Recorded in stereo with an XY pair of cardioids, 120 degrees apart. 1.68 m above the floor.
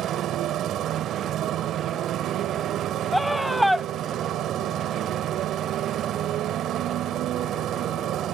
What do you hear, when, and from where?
0.0 s a motorcycle: 65° right
3.1 s a scream: straight ahead